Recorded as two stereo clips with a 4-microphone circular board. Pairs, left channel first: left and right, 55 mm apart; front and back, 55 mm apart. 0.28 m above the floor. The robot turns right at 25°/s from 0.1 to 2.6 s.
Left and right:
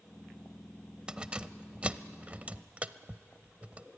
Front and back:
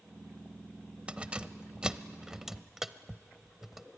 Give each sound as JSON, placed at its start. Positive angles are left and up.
{"t": 1.1, "sound": "keys jangling", "azimuth_deg": -145, "distance_m": 0.6}